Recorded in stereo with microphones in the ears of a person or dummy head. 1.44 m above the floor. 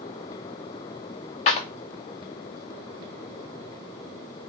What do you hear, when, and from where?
1.5 s a clap: 40° left (ahead or behind), 0.6 m